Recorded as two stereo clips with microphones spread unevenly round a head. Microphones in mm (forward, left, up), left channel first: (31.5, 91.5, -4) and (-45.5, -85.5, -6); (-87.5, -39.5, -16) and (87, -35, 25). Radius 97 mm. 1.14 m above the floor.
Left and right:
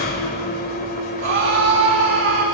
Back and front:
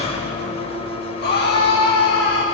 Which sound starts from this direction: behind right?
A scream, at 1.2 s.